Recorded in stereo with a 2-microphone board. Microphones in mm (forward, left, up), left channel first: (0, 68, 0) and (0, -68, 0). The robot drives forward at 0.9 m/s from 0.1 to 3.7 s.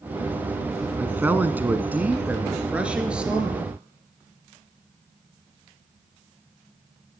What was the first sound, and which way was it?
A man speaking, 15° right (ahead or behind).